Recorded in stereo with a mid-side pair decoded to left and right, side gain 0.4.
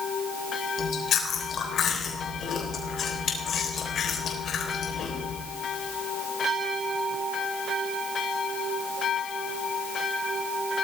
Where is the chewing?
60° left, 3.5 m.